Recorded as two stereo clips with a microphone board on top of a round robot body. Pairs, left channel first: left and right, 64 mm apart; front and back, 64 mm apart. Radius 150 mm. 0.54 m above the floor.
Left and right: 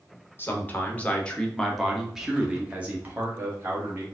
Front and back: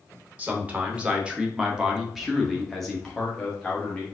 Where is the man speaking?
130° left, 1.5 m; by 4.0 s 70° right, 1.6 m.